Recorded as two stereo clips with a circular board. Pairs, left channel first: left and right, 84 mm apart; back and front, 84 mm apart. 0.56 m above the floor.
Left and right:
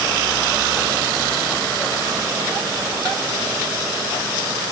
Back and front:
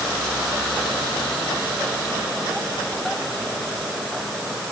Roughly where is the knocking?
No knocking in this recording.